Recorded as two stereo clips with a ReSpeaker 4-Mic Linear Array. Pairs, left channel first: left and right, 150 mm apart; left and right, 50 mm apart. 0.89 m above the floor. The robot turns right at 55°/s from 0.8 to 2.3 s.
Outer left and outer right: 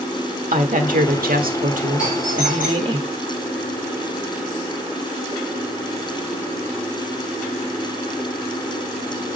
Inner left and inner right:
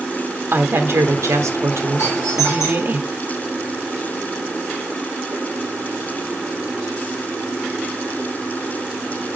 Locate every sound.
0.5 s a woman speaking: 120° right, 1.3 m; by 3.0 s 35° right, 1.3 m
2.0 s a doorbell: 60° left (ahead or behind), 5.5 m; by 3.0 s 75° left (ahead or behind), 5.5 m